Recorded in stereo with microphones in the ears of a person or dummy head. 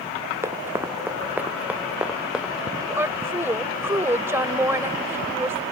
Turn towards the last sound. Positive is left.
turn(degrees=-10)  # may be behind; listen again after turning